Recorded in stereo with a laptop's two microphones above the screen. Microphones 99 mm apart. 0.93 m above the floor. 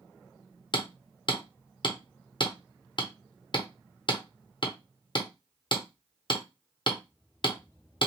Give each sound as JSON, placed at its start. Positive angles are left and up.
{"t": 0.7, "sound": "hammering", "side_deg": 50, "distance_m": 0.8}